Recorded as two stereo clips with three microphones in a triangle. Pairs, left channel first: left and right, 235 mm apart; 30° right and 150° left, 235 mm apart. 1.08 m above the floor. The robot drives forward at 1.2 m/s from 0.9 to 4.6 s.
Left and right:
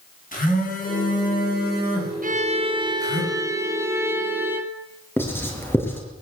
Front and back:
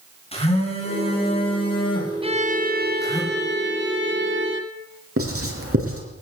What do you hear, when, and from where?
0.3 s a phone buzzing: 35° left, 10 m; by 3.2 s 45° left, 7.5 m
2.2 s a violin: 140° right, 0.8 m; by 4.8 s 170° right, 3.5 m
5.2 s writing: 170° left, 6 m